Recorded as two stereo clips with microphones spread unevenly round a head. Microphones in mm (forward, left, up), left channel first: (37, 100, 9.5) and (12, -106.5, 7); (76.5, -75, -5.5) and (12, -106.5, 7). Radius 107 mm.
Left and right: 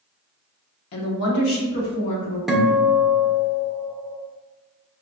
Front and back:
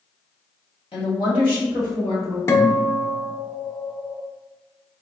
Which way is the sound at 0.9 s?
70° left.